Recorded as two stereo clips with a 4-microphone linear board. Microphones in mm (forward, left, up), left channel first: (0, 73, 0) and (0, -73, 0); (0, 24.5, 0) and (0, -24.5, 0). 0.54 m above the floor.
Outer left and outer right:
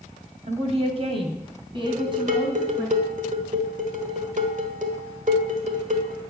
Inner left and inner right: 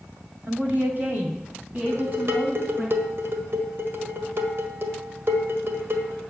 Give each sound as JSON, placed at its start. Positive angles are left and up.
{"t": 0.4, "sound": "a woman speaking", "side_deg": -50, "distance_m": 2.0}
{"t": 1.9, "sound": "dishes clattering", "side_deg": -60, "distance_m": 1.6}